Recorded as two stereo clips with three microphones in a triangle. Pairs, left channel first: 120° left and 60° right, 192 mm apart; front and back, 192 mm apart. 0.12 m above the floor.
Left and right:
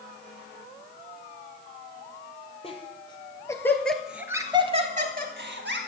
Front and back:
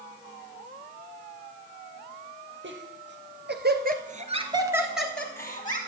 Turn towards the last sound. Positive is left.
turn(degrees=-65)